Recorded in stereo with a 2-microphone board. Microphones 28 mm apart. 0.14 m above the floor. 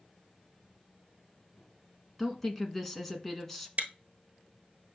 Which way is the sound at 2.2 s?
10° left (ahead or behind).